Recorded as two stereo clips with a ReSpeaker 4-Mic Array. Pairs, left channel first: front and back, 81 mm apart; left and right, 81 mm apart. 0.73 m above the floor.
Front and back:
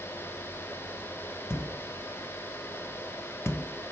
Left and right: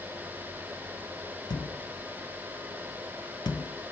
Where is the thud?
55° left, 0.6 m.